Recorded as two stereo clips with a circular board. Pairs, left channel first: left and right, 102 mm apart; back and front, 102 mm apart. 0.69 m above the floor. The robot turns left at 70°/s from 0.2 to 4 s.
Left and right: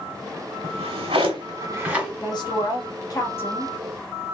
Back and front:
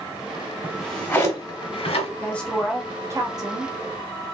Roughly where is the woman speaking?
Behind left.